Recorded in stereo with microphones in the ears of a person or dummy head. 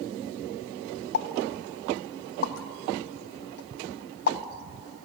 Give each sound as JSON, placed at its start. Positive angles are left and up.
{"t": 1.1, "sound": "a pop", "side_deg": 55, "distance_m": 1.0}